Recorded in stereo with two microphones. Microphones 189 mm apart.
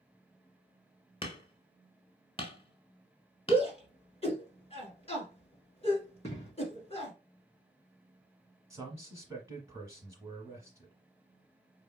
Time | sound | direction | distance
1.2 | hammering | 30° left (ahead or behind) | 1.1 m
3.5 | a shout | 30° left (ahead or behind) | 1.7 m
6.2 | an explosion | 30° left (ahead or behind) | 3 m
8.7 | a man speaking | 15° right (ahead or behind) | 1.3 m